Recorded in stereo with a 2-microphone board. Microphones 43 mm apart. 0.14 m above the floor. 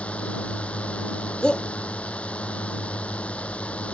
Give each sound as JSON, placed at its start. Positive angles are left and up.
{"t": 0.0, "sound": "a drone", "side_deg": 30}
{"t": 1.4, "sound": "a shout", "side_deg": 20}